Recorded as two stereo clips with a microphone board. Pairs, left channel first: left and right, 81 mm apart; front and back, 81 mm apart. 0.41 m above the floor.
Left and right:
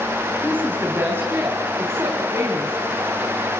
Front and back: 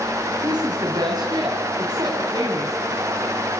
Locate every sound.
0.4 s a woman speaking: 155° right, 3.5 m; by 2.8 s 145° right, 5 m